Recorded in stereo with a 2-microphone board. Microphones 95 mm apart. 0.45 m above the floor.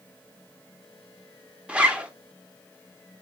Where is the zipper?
10° right (ahead or behind), 0.7 m.